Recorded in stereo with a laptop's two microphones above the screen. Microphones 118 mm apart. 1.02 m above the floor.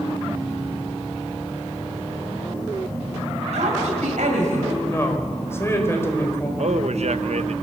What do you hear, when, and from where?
3.5 s a woman speaking: 85° right, 5.5 m
4.8 s a woman speaking: 20° left (ahead or behind), 4.5 m
6.6 s a man speaking: 65° right (ahead or behind), 0.8 m